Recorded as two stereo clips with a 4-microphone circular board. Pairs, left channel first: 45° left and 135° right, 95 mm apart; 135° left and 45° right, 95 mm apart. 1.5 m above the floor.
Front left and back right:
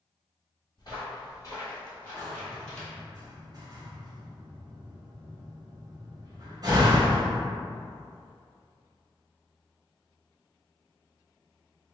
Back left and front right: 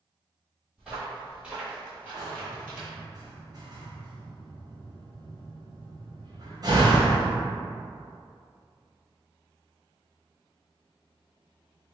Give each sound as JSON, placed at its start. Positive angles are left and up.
{"t": 0.8, "sound": "footsteps", "azimuth_deg": 40, "distance_m": 1.9}
{"t": 2.2, "sound": "a door slam", "azimuth_deg": -90, "distance_m": 0.9}